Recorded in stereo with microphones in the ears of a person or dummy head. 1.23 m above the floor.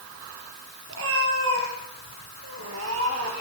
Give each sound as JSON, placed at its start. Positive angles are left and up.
{"t": 0.9, "sound": "a cat meowing", "side_deg": -70, "distance_m": 6.5}